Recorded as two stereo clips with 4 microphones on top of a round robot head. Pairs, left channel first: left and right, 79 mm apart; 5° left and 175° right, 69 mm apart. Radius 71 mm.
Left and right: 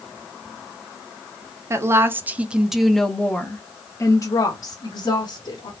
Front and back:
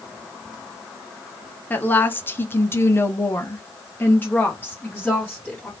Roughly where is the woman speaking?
Ahead right.